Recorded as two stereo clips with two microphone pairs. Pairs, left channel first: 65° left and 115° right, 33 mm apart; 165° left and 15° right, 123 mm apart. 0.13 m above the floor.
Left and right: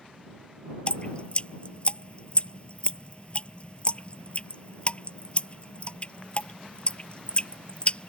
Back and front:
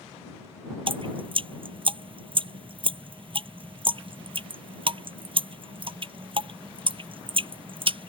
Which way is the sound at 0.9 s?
20° left.